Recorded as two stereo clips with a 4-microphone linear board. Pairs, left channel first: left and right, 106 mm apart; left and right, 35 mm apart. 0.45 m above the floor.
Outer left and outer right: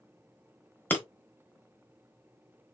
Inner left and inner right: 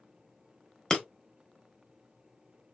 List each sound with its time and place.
0.9 s breaking glass: 20° left (ahead or behind), 1.1 m